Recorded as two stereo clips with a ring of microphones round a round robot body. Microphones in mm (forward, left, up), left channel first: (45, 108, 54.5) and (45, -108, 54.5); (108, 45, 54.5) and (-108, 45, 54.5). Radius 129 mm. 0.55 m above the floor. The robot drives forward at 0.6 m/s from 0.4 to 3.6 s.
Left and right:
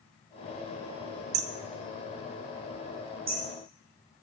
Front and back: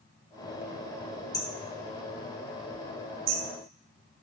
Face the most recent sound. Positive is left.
turn(degrees=-160)